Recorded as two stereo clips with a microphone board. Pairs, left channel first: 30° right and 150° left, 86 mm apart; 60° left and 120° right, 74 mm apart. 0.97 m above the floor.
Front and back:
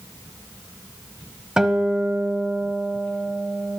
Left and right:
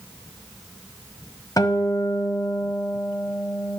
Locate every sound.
1.6 s a guitar: 70° left, 1.2 m